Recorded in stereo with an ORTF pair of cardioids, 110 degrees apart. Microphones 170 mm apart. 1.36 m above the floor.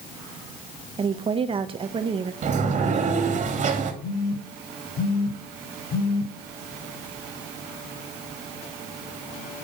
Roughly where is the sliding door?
Ahead right.